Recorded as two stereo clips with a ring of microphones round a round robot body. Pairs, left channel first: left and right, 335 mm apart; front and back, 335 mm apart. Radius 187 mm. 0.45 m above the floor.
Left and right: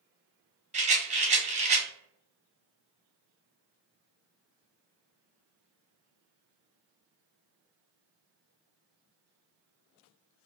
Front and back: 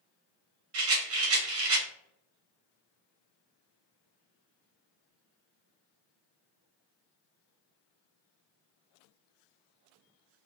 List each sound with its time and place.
0.7 s a rattle: 155° right, 1.1 m